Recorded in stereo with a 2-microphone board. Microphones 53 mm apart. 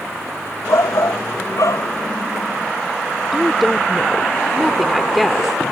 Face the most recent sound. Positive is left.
turn(degrees=0)  # may be behind; listen again after turning